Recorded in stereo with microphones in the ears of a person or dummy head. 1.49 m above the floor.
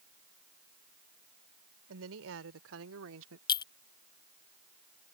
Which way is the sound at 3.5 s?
25° left (ahead or behind).